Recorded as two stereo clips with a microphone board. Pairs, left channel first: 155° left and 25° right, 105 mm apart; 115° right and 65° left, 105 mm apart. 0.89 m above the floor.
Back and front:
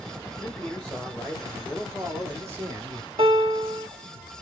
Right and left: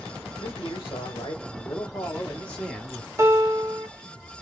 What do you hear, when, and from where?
0.4 s a man speaking: 130° right, 1.4 m; by 3.1 s 15° right, 1.1 m
3.2 s a piano: straight ahead, 0.8 m